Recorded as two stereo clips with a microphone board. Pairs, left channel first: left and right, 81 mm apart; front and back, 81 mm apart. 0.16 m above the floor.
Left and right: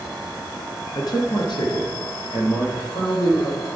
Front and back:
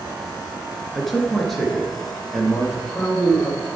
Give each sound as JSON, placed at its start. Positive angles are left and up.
{"t": 0.9, "sound": "a man speaking", "azimuth_deg": 85, "distance_m": 2.0}